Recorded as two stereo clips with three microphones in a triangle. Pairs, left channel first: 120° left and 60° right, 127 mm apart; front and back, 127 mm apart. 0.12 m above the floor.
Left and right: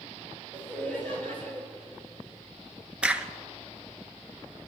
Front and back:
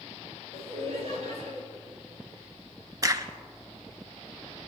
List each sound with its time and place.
0.5 s laughter: 165° right, 4.5 m
3.0 s a crack: 135° right, 0.7 m